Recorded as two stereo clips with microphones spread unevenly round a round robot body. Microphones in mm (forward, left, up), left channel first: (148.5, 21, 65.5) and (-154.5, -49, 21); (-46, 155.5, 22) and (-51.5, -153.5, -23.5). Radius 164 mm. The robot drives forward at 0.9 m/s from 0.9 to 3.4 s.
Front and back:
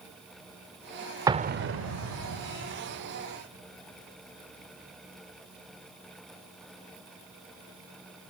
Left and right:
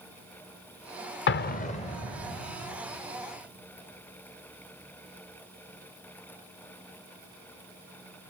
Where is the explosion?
130° left, 0.5 m; by 2.4 s 170° left, 1.3 m.